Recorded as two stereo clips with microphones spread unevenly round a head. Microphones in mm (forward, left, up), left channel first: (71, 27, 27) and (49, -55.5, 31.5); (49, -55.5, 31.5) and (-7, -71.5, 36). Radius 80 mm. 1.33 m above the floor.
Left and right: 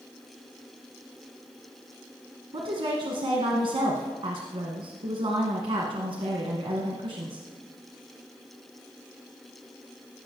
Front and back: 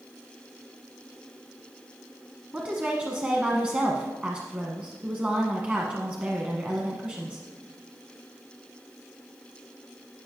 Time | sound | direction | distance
2.5 | a woman speaking | 95° right | 1.1 m